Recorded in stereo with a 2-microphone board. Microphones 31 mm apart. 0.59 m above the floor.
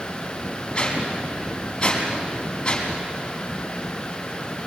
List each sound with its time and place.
0.8 s a whoosh: 15° left (ahead or behind), 5 m